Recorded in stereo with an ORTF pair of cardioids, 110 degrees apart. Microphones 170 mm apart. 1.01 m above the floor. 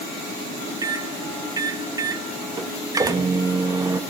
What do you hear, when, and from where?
0.8 s a microwave: 20° right, 1.1 m